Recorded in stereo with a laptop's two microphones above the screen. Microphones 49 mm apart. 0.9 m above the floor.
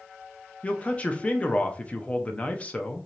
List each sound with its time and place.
0.6 s a man speaking: 25° left (ahead or behind), 0.5 m